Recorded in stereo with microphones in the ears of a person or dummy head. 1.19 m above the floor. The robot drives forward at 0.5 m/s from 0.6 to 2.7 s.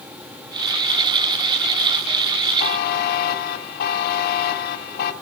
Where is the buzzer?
45° left (ahead or behind), 1.2 m.